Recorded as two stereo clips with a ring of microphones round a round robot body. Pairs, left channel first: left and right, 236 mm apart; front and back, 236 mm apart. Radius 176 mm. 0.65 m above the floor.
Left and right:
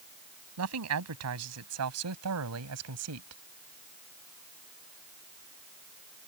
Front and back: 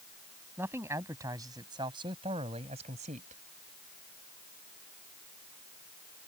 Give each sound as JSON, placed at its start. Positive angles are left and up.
{"t": 0.6, "sound": "a man speaking", "azimuth_deg": -95}